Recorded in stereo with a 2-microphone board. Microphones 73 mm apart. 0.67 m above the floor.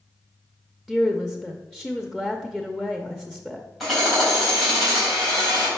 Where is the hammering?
Centre (ahead or behind), 3.5 m.